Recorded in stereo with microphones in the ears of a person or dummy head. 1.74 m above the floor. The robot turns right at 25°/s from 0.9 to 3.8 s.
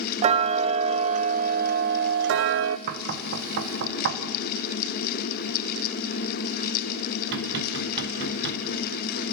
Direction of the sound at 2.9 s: 50° right (ahead or behind).